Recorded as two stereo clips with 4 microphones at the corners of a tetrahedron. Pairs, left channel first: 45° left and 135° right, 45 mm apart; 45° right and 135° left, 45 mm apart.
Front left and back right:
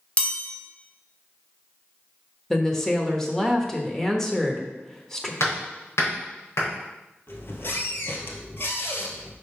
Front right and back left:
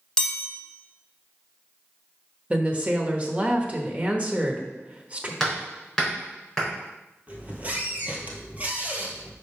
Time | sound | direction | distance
0.2 | a chime | 20° left | 1.6 m
2.5 | a woman speaking | 115° left | 1.0 m
5.4 | hammering | 40° left | 3.5 m
7.3 | a squeak | 75° left | 1.2 m